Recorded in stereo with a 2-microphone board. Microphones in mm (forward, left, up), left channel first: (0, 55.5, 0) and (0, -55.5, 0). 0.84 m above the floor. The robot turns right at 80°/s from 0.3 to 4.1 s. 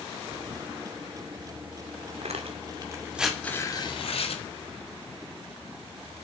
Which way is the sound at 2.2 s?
75° right (ahead or behind).